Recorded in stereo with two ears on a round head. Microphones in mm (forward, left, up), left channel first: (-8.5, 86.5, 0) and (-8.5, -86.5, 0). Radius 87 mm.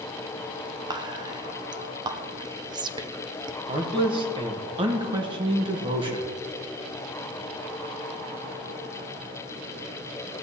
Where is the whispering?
20° right (ahead or behind), 0.6 m.